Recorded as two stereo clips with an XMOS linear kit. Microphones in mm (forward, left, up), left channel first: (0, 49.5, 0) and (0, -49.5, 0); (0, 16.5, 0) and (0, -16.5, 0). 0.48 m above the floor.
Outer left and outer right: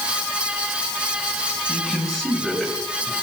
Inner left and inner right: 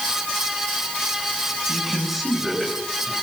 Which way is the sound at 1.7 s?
5° left (ahead or behind).